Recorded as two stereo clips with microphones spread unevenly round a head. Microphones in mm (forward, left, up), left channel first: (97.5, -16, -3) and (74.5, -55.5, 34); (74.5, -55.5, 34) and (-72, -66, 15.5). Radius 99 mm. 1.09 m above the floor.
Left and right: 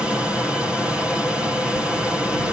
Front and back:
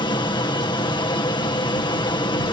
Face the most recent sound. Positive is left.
turn(degrees=25)